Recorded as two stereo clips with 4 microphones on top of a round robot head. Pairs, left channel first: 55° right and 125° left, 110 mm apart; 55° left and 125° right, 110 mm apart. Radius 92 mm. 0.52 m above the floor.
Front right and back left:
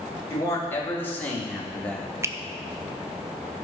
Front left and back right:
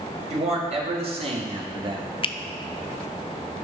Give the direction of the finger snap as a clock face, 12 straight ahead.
10 o'clock.